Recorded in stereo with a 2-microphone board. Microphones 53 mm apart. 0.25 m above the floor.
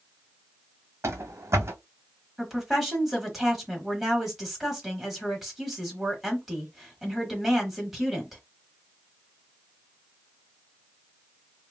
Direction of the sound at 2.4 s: 5° right (ahead or behind).